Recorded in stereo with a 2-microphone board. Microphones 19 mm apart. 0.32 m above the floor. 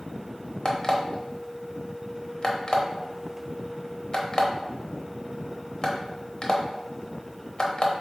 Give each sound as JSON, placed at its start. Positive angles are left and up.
{"t": 0.7, "sound": "an alarm clock", "side_deg": 40, "distance_m": 0.7}